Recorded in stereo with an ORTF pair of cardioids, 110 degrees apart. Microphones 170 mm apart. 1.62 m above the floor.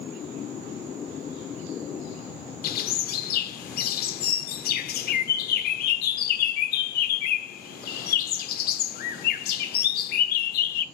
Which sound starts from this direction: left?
A bird, at 2.6 s.